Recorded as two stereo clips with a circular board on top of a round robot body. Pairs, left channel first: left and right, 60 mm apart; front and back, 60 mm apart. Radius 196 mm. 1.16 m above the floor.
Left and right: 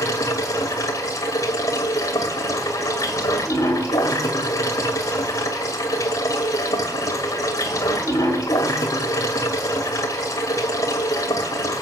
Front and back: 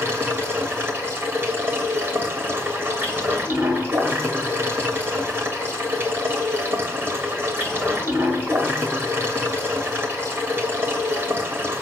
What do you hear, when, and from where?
0.0 s running water: 115° left, 0.8 m